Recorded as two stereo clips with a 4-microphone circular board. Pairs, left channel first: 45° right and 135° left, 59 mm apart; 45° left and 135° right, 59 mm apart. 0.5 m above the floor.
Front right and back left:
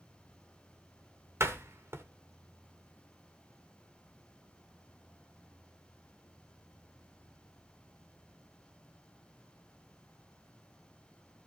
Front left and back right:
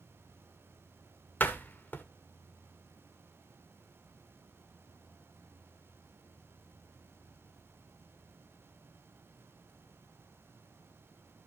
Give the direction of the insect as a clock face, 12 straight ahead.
7 o'clock.